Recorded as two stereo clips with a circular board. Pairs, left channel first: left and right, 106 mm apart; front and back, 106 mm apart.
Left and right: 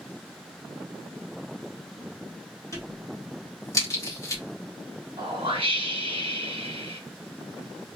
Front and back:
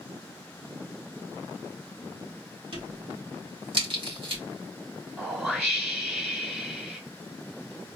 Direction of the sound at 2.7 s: 150° left.